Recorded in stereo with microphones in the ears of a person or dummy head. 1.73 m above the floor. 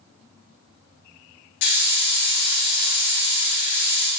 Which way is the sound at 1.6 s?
60° left (ahead or behind).